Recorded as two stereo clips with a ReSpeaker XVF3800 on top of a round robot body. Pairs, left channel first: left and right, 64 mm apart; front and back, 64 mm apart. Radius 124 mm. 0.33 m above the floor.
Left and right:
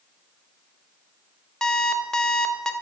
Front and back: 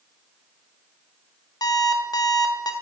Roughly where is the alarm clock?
Ahead.